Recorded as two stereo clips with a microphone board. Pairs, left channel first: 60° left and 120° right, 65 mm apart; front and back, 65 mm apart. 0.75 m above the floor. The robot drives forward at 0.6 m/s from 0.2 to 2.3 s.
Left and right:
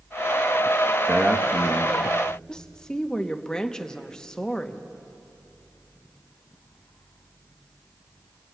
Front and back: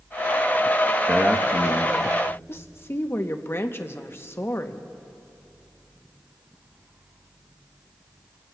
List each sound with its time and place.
1.1 s a man speaking: 120° right, 0.8 m; by 2.0 s 160° right, 1.0 m
2.5 s a woman speaking: 10° right, 0.7 m